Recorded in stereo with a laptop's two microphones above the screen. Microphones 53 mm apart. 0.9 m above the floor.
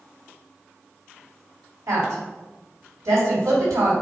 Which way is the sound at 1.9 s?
80° right.